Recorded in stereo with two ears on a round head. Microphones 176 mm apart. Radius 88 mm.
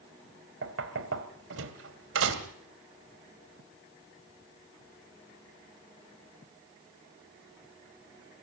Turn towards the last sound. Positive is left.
turn(degrees=-65)  # may be behind; listen again after turning